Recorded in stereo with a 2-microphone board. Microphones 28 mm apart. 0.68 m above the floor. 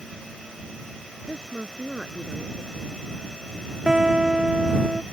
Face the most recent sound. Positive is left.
turn(degrees=-25)  # may be behind; listen again after turning